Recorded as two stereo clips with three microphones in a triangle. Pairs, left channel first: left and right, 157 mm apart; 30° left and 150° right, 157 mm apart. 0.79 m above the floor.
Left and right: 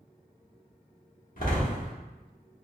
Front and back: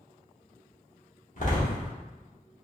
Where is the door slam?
65° left, 1.0 m.